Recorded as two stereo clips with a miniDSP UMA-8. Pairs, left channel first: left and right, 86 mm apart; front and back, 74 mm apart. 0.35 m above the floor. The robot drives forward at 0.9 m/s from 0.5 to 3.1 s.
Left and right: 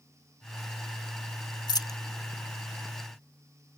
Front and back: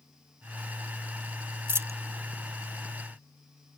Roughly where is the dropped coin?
Behind left.